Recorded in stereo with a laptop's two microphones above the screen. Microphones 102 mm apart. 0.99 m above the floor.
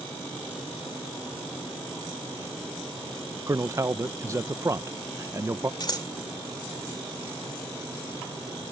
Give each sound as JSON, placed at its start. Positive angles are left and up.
{"t": 3.5, "sound": "a man speaking", "side_deg": -30}
{"t": 5.8, "sound": "scissors", "side_deg": 45}